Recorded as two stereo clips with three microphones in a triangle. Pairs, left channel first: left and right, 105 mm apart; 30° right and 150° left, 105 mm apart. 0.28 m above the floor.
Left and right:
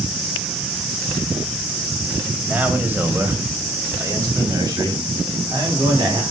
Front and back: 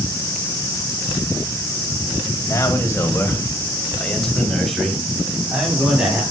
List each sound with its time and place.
2.5 s a man speaking: 25° right, 1.8 m; by 6.2 s 135° right, 3 m